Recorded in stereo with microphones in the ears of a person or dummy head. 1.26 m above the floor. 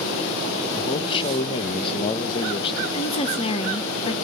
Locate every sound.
0.7 s a man speaking: 25° left (ahead or behind), 0.9 m
2.9 s a woman speaking: 30° left (ahead or behind), 1.1 m